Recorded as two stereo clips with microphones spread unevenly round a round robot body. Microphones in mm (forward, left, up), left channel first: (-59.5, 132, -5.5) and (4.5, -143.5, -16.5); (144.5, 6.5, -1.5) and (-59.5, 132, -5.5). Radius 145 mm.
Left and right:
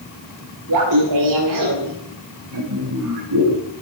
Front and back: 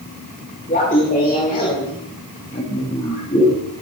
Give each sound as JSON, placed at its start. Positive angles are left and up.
{"t": 0.7, "sound": "laughter", "azimuth_deg": -100, "distance_m": 2.5}